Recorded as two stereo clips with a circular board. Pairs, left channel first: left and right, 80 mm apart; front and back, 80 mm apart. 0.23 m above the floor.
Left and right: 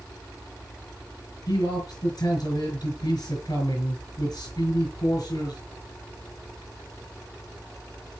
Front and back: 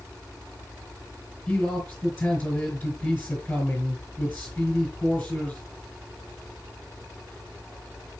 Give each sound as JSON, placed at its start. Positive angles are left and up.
{"t": 1.5, "sound": "a man speaking", "azimuth_deg": 80, "distance_m": 4.0}